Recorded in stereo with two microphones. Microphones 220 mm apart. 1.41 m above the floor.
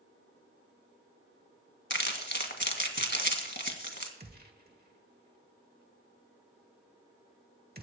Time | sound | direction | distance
1.9 | crumpling | 55° left (ahead or behind) | 2.0 m
4.2 | a gunshot | 45° right (ahead or behind) | 1.6 m